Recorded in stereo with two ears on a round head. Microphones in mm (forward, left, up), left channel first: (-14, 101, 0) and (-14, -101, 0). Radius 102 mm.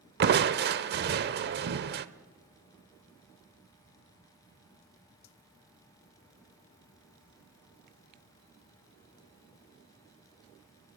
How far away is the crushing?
About 0.9 m.